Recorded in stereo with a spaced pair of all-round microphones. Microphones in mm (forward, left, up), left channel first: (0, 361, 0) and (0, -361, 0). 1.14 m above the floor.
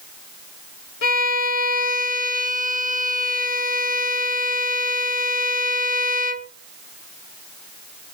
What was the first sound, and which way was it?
A violin, 55° left (ahead or behind).